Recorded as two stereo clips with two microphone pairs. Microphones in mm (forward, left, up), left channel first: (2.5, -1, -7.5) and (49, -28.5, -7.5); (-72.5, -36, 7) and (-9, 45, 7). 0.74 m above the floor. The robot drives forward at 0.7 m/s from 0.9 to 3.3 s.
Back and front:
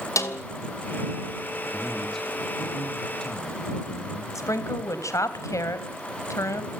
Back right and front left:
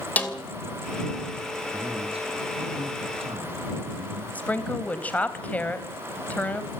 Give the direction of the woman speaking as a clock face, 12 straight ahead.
7 o'clock.